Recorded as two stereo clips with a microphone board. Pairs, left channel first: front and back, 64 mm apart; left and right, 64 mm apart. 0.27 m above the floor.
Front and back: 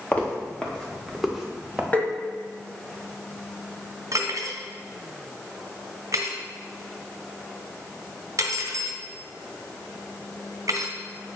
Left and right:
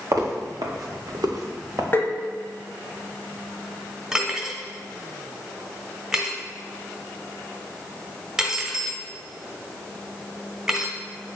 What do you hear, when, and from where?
0.1 s footsteps: 60° right, 3 m; by 1.8 s 105° right, 2.5 m
1.9 s tapping: 55° left, 1.3 m
4.1 s cutlery clinking: 165° right, 1.5 m